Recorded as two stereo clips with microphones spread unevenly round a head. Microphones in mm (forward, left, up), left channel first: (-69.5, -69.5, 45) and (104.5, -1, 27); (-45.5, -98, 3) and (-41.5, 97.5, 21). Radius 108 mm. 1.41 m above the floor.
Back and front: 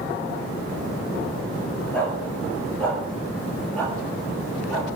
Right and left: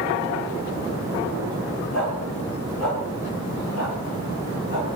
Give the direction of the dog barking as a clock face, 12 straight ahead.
3 o'clock.